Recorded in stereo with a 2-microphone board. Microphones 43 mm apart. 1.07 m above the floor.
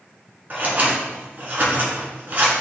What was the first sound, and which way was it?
Scissors, 40° right (ahead or behind).